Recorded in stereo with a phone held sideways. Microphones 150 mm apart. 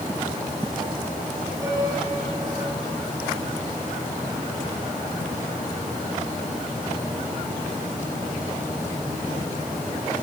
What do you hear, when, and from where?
1.6 s a piano: 20° right (ahead or behind), 8.5 m